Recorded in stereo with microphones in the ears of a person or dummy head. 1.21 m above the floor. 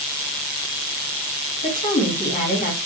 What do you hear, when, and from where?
1.6 s a woman speaking: 35° left (ahead or behind), 2.0 m